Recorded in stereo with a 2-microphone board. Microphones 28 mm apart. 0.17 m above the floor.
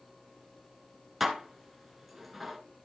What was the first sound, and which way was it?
Dishes clattering, centre (ahead or behind).